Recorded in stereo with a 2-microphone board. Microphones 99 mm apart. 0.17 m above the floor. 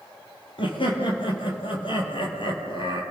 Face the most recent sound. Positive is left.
turn(degrees=55)  # may be behind; listen again after turning